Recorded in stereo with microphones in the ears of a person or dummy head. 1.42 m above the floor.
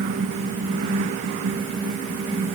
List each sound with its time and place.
Only background noise.